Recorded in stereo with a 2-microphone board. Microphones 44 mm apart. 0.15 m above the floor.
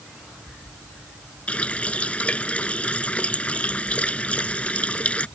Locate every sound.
1.5 s a running tap: 30° left (ahead or behind)